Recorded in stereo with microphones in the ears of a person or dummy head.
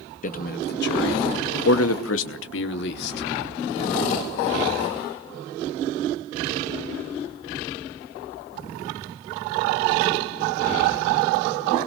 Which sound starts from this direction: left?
A man speaking, at 0.2 s.